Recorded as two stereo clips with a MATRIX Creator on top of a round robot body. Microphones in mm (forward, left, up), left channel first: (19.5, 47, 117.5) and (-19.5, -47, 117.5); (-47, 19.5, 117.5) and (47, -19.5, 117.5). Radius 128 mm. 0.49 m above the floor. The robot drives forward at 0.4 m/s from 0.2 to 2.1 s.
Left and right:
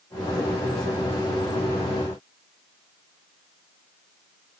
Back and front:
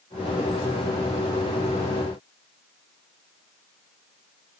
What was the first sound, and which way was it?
Only background noise.